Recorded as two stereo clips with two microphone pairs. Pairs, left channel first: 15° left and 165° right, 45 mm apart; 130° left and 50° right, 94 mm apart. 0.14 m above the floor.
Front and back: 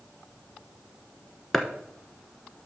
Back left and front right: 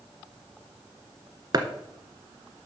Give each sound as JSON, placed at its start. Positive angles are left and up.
{"t": 1.5, "sound": "chopping", "azimuth_deg": -75, "distance_m": 1.1}